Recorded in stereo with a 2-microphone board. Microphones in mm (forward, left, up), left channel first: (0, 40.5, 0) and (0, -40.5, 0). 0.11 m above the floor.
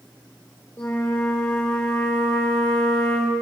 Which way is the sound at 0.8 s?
25° left (ahead or behind).